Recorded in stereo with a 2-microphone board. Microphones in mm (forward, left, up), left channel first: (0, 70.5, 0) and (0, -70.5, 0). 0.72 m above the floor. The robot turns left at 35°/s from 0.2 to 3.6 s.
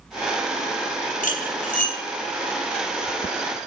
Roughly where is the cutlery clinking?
Left.